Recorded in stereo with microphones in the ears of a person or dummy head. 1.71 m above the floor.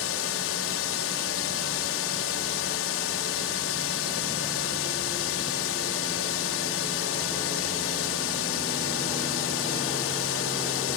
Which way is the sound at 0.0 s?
75° left (ahead or behind).